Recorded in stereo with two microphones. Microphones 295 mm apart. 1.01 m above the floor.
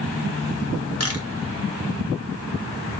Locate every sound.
1.0 s a camera shutter: 50° left (ahead or behind), 1.0 m